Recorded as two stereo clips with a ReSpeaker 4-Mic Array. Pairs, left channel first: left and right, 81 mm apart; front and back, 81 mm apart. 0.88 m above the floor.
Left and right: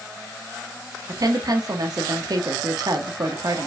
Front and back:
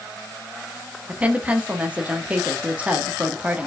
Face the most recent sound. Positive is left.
turn(degrees=-110)